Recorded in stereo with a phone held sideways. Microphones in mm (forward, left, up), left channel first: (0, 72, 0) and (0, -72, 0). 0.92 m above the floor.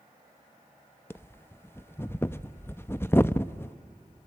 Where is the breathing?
15° left (ahead or behind), 0.6 m.